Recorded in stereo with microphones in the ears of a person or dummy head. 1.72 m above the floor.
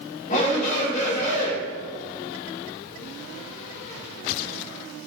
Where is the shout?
40° left (ahead or behind), 5.5 m.